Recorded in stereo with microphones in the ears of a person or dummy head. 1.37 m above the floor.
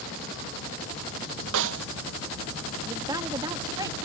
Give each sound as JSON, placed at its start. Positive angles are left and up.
{"t": 1.5, "sound": "a snare drum", "side_deg": -75}
{"t": 2.9, "sound": "a woman speaking", "side_deg": -20}